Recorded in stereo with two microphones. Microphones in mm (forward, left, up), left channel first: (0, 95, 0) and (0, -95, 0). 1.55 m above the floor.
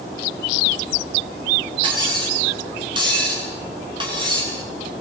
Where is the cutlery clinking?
25° right (ahead or behind), 9.5 m.